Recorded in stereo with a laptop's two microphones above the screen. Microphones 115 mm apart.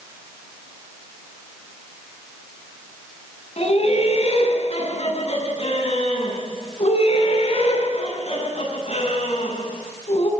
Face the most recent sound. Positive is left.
turn(degrees=55)  # may be behind; listen again after turning